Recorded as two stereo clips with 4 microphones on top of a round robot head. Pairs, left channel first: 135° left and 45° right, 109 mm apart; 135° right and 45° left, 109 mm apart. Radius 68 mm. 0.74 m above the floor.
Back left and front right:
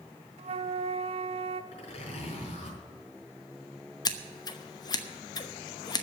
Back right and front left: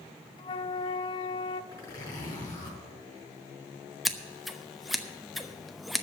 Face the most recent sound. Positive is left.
turn(degrees=135)